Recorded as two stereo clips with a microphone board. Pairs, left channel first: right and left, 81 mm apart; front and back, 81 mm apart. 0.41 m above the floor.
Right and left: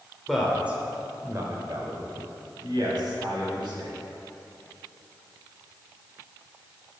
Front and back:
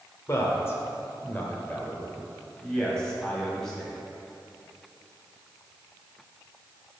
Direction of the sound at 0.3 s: Straight ahead.